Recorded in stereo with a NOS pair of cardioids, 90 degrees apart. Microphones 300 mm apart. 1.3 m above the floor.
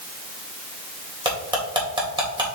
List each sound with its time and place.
1.2 s cutlery clinking: 15° right, 3.5 m